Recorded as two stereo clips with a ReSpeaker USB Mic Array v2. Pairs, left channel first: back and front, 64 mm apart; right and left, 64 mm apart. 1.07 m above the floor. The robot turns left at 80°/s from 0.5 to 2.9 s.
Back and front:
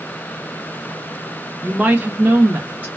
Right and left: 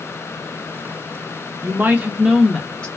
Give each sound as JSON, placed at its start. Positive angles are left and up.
{"t": 1.6, "sound": "a woman speaking", "azimuth_deg": 70, "distance_m": 0.5}